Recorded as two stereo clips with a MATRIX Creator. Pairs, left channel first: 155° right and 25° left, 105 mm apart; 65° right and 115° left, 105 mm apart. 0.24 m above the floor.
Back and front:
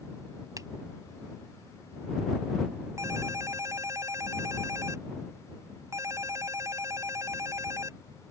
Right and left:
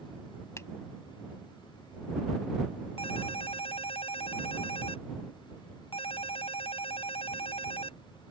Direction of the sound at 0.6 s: 15° right.